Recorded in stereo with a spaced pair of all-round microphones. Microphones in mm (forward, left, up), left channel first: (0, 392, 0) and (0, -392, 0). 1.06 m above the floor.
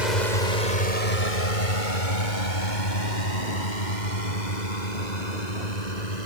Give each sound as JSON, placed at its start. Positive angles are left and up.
{"t": 0.0, "sound": "a drone", "side_deg": 65}